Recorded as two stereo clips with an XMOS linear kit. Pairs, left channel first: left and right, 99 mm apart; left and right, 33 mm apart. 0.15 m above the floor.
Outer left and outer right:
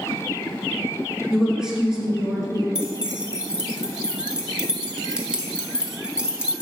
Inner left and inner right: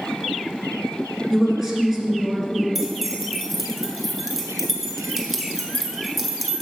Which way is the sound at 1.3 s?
5° right (ahead or behind).